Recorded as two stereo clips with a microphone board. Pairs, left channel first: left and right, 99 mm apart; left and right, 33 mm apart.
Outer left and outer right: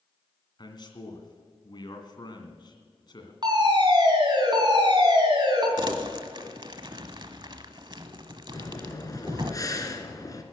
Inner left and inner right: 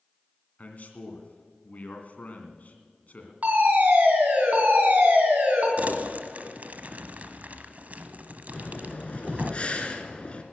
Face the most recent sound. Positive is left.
turn(degrees=35)  # may be behind; listen again after turning